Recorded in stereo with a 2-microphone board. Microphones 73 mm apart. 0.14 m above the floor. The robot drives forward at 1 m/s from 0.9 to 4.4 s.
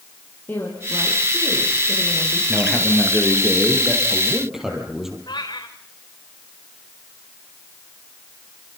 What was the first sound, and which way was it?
A woman speaking, 25° left (ahead or behind).